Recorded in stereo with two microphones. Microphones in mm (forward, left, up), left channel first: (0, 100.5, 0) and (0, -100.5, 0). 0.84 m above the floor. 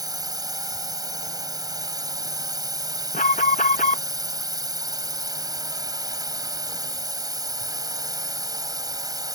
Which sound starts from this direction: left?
An alarm, at 3.1 s.